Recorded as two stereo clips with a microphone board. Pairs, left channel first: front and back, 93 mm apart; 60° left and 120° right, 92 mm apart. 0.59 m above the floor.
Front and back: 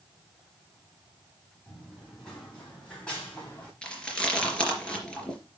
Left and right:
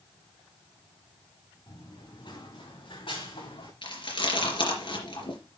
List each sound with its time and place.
1.7 s running footsteps: 85° left, 8 m; by 3.7 s 75° left, 6.5 m
3.8 s chewing: 80° left, 3.5 m